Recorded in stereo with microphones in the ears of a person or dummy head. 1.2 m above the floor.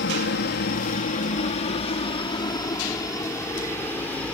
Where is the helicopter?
55° left (ahead or behind); by 4.3 s 10° left (ahead or behind).